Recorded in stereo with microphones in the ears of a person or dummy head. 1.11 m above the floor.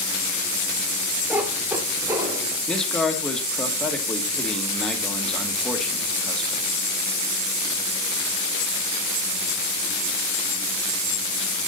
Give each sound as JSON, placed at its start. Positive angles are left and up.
{"t": 1.3, "sound": "a cat meowing", "side_deg": -5, "distance_m": 1.1}
{"t": 2.7, "sound": "a man speaking", "side_deg": 5, "distance_m": 1.4}